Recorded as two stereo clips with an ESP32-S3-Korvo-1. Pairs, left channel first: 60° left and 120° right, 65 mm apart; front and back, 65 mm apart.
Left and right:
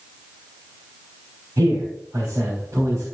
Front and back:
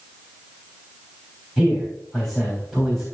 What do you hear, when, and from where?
1.6 s a man speaking: 85° right, 4 m